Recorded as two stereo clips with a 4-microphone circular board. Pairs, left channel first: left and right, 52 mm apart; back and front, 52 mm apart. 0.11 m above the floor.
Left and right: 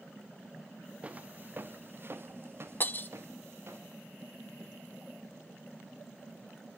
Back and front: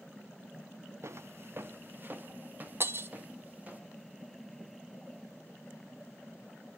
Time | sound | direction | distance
1.0 | footsteps | 25° right | 0.7 m
2.8 | breaking glass | 40° left | 0.7 m